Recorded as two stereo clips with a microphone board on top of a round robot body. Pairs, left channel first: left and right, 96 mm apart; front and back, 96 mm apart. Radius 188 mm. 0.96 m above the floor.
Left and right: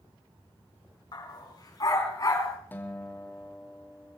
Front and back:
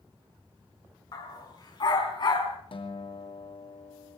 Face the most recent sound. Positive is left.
turn(degrees=20)